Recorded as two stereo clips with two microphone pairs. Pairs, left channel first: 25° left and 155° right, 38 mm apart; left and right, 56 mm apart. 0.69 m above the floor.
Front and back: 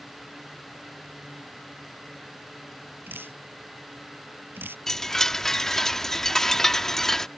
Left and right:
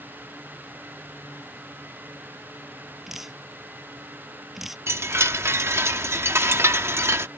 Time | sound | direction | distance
3.1 | dripping | 175° right | ?
4.9 | a chime | 55° right | ?